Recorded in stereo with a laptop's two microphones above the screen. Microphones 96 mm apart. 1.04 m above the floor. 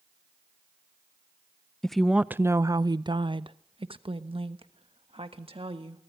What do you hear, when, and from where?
1.8 s a woman speaking: 5° left (ahead or behind), 0.5 m; by 6.0 s 70° right (ahead or behind), 2.0 m